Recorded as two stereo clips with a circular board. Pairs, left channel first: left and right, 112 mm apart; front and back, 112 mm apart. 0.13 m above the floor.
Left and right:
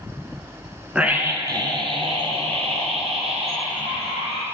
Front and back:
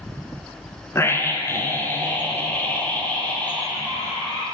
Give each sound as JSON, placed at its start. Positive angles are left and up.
{"t": 0.9, "sound": "a scream", "azimuth_deg": -20, "distance_m": 1.1}